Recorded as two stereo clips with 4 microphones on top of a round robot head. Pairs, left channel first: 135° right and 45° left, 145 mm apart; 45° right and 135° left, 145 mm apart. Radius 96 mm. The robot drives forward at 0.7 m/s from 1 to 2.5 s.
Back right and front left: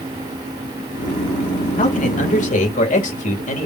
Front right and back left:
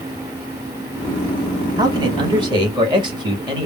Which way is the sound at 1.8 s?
160° right.